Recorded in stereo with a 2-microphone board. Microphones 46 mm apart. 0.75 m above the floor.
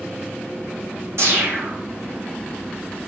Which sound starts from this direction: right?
A whoosh, at 1.2 s.